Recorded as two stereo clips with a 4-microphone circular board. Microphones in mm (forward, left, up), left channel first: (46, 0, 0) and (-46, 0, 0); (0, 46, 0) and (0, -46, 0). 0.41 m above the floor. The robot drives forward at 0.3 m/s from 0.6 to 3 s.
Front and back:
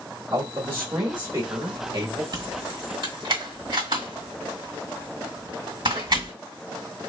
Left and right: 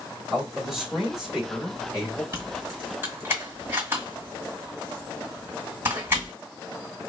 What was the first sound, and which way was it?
A man speaking, 165° right.